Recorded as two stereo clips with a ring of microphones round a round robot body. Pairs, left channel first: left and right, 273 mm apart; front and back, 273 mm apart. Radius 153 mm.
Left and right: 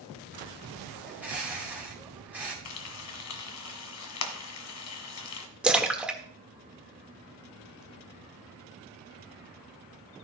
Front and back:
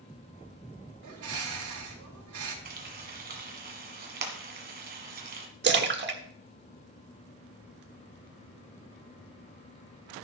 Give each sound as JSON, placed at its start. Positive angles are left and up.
{"t": 1.0, "sound": "a bird", "azimuth_deg": -175, "distance_m": 4.5}
{"t": 2.6, "sound": "frying", "azimuth_deg": 120, "distance_m": 1.6}
{"t": 5.6, "sound": "a splash", "azimuth_deg": -175, "distance_m": 1.5}